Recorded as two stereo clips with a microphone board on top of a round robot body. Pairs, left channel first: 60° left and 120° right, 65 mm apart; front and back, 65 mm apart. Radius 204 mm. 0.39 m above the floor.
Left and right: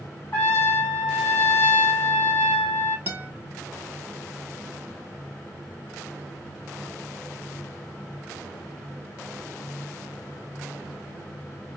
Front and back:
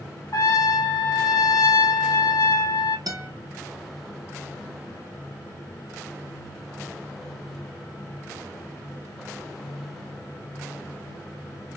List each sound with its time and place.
0.3 s a trumpet: 20° left, 3 m
3.1 s a guitar: straight behind, 1.6 m